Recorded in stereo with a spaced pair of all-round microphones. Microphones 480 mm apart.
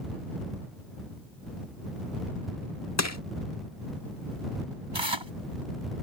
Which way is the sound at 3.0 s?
35° left (ahead or behind).